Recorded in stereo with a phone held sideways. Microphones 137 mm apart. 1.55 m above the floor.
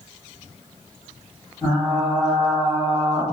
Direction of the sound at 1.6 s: 15° left (ahead or behind).